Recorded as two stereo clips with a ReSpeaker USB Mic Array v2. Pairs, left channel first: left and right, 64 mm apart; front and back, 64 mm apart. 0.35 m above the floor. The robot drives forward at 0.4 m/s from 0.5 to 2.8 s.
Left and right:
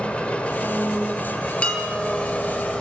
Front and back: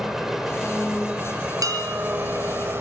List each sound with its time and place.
0.0 s an engine running: 110° left, 1.2 m; by 2.8 s 160° left, 1.6 m
1.6 s dishes clattering: 160° left, 4 m; by 2.1 s 165° left, 4 m